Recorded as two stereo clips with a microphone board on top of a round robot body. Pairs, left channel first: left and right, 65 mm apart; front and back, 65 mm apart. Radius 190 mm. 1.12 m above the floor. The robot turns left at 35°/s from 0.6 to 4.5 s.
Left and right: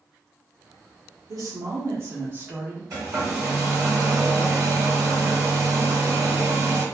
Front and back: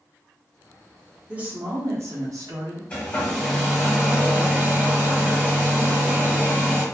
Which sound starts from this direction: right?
A woman speaking, at 1.3 s.